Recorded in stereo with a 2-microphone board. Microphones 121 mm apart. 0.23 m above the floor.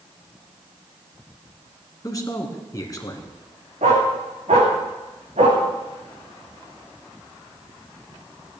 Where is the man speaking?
30° left (ahead or behind), 2 m.